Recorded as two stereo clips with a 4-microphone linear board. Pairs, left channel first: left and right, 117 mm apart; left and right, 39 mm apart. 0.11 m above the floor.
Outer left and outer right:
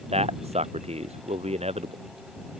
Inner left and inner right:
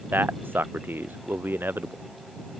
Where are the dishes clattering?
I don't hear dishes clattering.